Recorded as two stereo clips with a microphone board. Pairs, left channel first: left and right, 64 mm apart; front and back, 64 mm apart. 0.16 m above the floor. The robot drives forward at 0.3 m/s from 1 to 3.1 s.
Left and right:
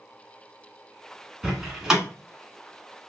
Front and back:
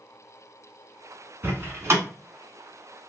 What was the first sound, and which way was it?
A door slam, 165° right.